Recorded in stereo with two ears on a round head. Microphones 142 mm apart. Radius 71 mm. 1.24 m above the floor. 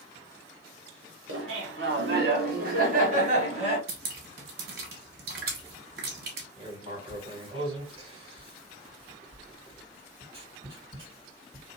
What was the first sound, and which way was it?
Laughter, 85° right.